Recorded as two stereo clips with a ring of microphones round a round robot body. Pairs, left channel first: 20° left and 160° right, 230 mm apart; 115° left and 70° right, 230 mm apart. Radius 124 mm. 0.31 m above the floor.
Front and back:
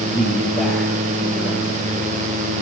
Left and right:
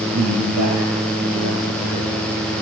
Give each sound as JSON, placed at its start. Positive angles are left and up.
{"t": 0.1, "sound": "a man speaking", "azimuth_deg": -70, "distance_m": 9.5}